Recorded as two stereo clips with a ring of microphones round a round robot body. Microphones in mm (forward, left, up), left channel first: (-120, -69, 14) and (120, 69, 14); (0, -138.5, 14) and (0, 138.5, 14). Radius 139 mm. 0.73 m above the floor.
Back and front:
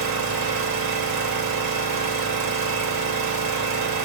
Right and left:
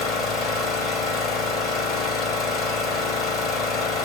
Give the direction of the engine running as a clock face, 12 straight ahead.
12 o'clock.